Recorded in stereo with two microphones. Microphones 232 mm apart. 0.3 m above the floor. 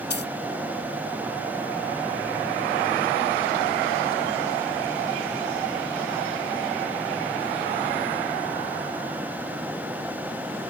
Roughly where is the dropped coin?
Left.